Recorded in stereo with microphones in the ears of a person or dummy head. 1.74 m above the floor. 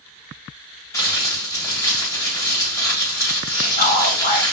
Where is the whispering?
35° left (ahead or behind), 1.8 m.